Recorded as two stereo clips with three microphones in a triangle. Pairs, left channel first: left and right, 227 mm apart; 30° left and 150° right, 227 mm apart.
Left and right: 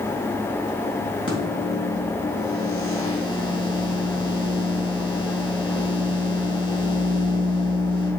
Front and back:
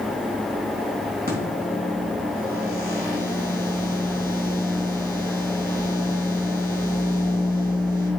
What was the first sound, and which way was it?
A microwave, 105° right.